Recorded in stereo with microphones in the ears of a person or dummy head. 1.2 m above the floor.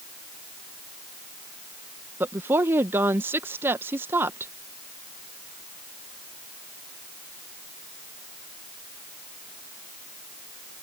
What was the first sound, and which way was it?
A woman speaking, 15° right (ahead or behind).